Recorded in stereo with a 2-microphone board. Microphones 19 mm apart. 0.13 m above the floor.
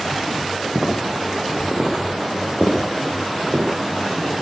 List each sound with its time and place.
0.8 s footsteps: 65° right (ahead or behind), 7 m; by 3.6 s 70° right (ahead or behind), 8.5 m